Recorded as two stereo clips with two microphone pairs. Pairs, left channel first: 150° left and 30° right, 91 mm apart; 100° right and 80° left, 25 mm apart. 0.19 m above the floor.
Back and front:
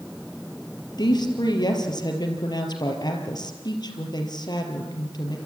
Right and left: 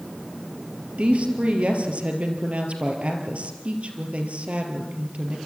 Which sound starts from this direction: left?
A woman speaking, at 1.0 s.